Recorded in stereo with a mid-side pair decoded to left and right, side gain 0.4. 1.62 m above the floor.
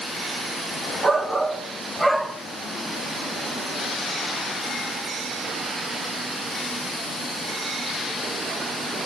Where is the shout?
25° right, 1.7 m; by 2.4 s 5° right, 2 m.